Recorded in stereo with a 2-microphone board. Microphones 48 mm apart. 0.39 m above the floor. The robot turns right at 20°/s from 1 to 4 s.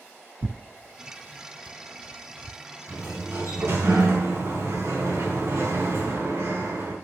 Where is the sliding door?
60° right (ahead or behind), 4 m; by 7.0 s 70° right (ahead or behind), 4 m.